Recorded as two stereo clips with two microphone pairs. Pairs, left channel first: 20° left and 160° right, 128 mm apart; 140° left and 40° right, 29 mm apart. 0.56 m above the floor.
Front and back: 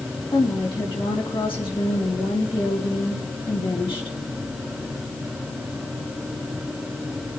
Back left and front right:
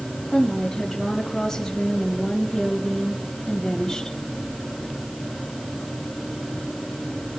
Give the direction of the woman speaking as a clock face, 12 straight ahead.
10 o'clock.